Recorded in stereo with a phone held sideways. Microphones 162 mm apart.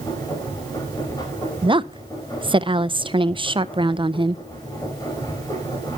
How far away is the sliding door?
No sliding door in this recording.